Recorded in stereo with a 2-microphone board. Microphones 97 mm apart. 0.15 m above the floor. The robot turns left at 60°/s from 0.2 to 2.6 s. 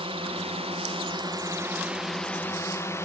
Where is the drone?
70° right (ahead or behind); by 3.0 s 25° left (ahead or behind).